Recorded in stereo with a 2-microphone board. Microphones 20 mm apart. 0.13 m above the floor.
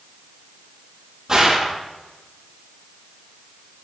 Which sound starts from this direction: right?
A gunshot, at 1.3 s.